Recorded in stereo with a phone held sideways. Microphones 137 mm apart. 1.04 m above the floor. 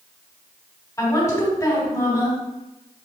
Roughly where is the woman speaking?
Left.